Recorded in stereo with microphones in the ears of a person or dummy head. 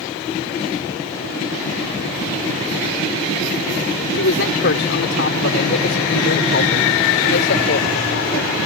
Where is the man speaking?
65° left (ahead or behind); by 8.5 s 60° left (ahead or behind).